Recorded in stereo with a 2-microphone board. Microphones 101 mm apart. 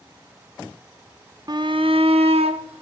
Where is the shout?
40° right (ahead or behind), 0.7 m; by 2.8 s 80° right, 1.6 m.